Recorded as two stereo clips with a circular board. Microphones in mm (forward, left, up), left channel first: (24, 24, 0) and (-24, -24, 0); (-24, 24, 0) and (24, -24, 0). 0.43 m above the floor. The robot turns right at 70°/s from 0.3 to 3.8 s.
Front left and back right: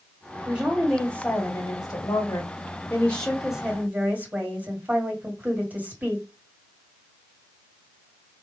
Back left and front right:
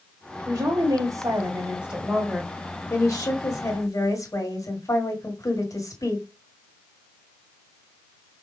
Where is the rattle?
I don't hear a rattle.